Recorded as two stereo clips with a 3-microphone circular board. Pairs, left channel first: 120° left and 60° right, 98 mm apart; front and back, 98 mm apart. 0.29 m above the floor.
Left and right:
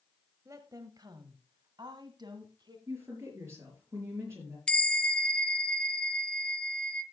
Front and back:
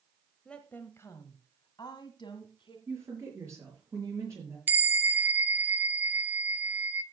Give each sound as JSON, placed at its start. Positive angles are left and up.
{"t": 0.5, "sound": "a woman speaking", "azimuth_deg": -75, "distance_m": 1.0}
{"t": 2.9, "sound": "a woman speaking", "azimuth_deg": -120, "distance_m": 6.5}
{"t": 4.7, "sound": "a bell", "azimuth_deg": 175, "distance_m": 0.7}